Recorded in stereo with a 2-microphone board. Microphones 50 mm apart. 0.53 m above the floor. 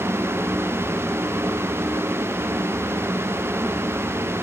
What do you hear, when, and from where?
Only background noise.